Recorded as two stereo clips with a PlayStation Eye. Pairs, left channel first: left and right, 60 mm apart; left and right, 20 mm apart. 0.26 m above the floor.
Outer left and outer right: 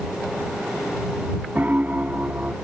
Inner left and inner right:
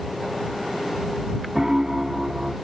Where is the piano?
25° right (ahead or behind).